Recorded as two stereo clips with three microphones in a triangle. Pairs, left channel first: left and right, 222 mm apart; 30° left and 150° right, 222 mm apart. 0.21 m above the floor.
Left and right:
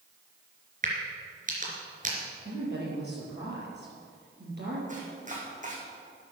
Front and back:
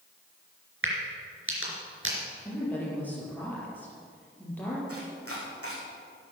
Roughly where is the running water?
I don't hear running water.